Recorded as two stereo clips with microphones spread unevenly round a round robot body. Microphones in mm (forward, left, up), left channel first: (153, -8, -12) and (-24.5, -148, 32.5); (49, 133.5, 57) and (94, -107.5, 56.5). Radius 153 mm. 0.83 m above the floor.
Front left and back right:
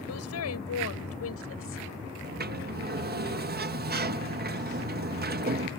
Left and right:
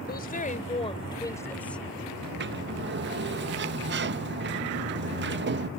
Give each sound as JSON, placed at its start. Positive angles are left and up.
{"t": 0.1, "sound": "a woman speaking", "azimuth_deg": 50}
{"t": 2.2, "sound": "a sliding door", "azimuth_deg": -100}